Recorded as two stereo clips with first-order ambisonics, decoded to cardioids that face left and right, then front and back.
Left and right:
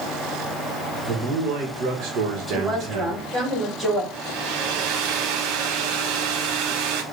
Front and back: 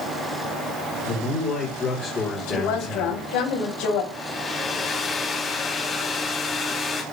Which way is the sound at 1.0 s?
55° right.